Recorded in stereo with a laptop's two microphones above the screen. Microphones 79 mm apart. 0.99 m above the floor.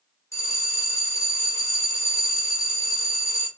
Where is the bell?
40° left (ahead or behind), 0.5 m.